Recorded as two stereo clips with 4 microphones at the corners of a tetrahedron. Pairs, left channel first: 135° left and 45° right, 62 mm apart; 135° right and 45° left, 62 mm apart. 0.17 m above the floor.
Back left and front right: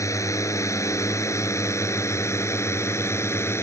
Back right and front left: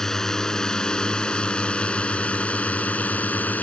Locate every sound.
0.0 s a drone: 145° left; by 3.6 s 165° left